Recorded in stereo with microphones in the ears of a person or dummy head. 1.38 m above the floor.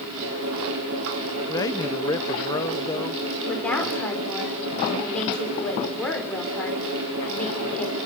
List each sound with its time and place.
0.0 s a fan: 80° right, 7 m
1.5 s a man speaking: 25° left (ahead or behind), 0.8 m
3.5 s a woman speaking: 5° left (ahead or behind), 5.5 m